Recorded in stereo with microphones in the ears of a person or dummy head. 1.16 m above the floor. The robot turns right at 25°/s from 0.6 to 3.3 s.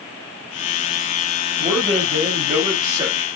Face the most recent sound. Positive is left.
turn(degrees=-25)